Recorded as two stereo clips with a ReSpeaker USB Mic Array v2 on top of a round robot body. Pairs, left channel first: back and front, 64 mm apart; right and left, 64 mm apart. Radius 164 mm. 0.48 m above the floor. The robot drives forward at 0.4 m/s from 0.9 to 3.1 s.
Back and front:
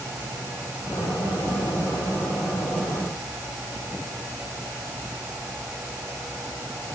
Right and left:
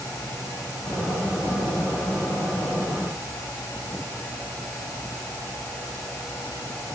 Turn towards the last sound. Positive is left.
No sound to turn to.